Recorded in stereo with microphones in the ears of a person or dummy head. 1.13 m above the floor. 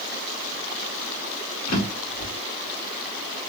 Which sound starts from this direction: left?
A drawer, at 1.7 s.